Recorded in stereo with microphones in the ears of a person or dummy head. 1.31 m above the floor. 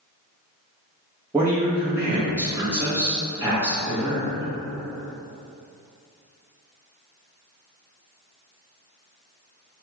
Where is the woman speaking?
5° right (ahead or behind), 1.1 m.